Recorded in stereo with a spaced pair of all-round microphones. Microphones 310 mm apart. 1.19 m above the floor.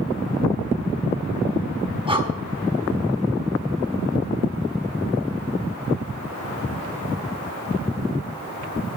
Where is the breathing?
15° right (ahead or behind), 1.0 m.